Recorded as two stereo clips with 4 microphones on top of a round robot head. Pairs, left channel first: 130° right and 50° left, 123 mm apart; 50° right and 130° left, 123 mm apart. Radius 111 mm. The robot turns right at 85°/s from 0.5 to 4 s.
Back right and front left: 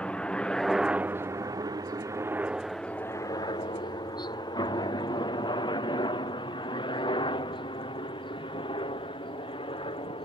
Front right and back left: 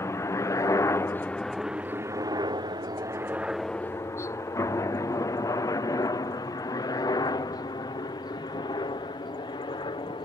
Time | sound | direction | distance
0.0 | a helicopter | 65° right | ?